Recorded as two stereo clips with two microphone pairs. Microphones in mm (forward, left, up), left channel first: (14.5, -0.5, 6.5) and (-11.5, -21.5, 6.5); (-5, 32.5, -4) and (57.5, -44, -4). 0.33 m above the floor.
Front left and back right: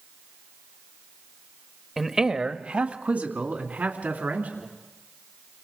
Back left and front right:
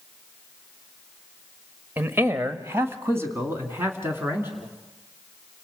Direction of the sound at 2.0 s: 70° right.